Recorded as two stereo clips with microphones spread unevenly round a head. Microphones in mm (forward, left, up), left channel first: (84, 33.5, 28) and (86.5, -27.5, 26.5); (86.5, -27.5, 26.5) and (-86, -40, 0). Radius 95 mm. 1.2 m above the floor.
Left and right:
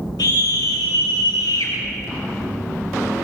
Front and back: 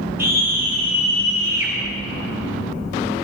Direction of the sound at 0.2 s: 105° left.